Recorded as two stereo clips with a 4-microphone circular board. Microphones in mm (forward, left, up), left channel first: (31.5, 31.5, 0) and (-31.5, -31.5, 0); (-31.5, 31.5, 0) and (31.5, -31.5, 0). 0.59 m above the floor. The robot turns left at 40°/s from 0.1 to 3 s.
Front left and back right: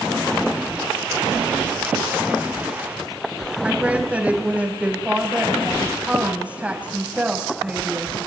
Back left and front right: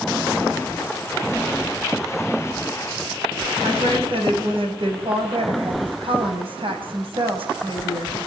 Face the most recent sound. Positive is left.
turn(degrees=-60)